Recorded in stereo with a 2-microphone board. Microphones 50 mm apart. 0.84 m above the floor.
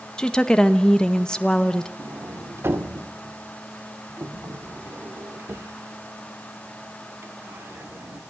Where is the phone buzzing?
I don't hear a phone buzzing.